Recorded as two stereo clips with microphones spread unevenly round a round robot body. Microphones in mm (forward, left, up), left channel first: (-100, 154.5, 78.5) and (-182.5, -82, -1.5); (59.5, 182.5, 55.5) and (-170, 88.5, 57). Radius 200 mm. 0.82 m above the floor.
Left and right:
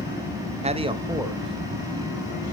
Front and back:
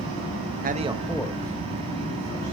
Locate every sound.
0.6 s a man speaking: 125° right, 1.0 m; by 2.5 s 15° right, 2.5 m